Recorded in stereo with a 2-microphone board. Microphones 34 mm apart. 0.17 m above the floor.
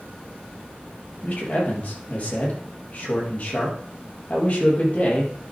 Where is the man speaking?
40° left (ahead or behind), 4.5 m.